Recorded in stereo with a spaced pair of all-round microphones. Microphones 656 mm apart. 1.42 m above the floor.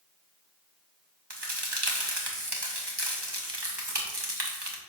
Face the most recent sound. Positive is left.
turn(degrees=-35)  # may be behind; listen again after turning